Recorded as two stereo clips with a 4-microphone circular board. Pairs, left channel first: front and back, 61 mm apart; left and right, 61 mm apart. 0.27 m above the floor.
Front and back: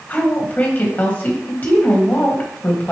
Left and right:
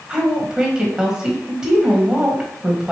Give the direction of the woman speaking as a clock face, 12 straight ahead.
1 o'clock.